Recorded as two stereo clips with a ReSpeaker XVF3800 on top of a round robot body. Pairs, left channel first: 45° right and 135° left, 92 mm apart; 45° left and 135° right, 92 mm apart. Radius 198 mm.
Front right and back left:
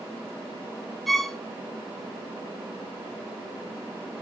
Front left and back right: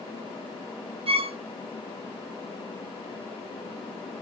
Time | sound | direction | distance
1.1 | a violin | 135° right | 0.8 m